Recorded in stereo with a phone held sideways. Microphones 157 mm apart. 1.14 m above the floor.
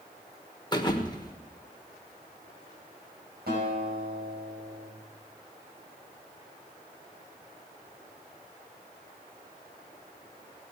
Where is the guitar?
80° right, 5.5 m.